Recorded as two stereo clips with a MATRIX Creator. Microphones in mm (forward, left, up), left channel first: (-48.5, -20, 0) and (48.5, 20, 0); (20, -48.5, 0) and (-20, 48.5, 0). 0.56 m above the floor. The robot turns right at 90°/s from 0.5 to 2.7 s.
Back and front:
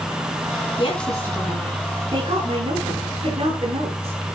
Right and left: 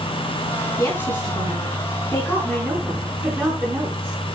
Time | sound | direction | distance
0.8 | a woman speaking | 130° right | 5 m